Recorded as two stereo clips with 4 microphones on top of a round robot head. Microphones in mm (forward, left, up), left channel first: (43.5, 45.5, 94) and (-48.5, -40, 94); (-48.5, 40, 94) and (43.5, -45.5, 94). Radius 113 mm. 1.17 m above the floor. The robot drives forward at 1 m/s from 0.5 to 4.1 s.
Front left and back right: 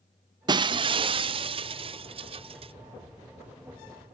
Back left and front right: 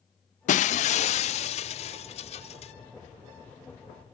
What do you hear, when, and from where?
0.5 s breaking glass: 165° left; by 2.7 s 175° left